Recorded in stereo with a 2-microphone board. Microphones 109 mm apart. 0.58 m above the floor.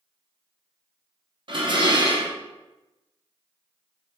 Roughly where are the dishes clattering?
Right.